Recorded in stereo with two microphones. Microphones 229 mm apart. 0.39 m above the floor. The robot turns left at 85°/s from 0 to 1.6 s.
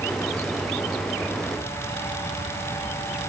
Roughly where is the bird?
I don't hear a bird.